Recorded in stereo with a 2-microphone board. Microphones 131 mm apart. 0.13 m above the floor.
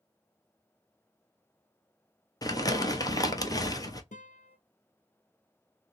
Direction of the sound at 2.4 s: 30° left (ahead or behind).